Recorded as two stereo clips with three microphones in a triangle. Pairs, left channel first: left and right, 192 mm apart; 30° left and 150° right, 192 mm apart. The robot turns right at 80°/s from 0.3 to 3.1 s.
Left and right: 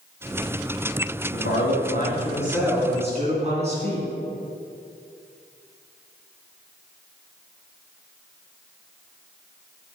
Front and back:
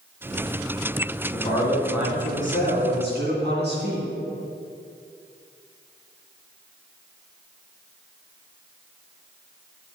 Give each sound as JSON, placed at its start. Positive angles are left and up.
{"t": 1.3, "sound": "a man speaking", "azimuth_deg": 75, "distance_m": 2.5}